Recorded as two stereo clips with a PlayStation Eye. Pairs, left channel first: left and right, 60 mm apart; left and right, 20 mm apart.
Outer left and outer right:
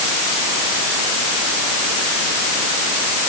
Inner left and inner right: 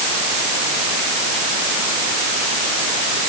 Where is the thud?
No thud in this recording.